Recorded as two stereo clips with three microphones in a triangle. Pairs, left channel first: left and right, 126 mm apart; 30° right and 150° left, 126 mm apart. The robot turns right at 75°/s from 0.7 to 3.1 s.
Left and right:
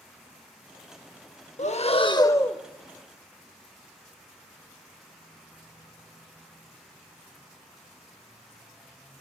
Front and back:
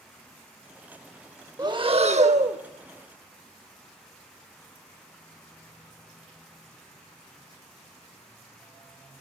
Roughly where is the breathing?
Left.